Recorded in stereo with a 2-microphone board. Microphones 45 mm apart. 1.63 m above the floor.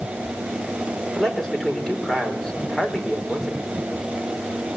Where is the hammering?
No hammering in this recording.